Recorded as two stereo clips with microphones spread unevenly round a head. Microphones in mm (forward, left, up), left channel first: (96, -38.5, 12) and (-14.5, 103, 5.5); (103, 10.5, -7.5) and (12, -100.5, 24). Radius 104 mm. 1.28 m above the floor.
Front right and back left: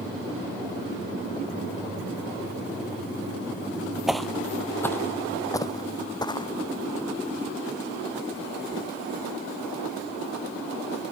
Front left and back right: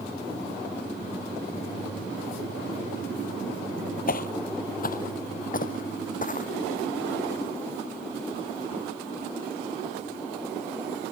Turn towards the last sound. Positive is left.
turn(degrees=15)